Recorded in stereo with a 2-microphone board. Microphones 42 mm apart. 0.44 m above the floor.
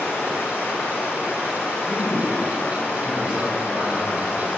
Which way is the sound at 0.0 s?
60° left (ahead or behind).